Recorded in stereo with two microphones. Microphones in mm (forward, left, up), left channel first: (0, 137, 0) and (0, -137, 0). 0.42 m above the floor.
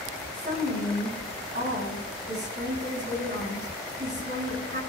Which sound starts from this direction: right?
A woman speaking, at 0.3 s.